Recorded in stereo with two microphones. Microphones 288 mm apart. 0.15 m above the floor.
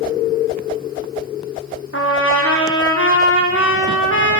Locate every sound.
1.9 s a trumpet: 45° left (ahead or behind), 4.5 m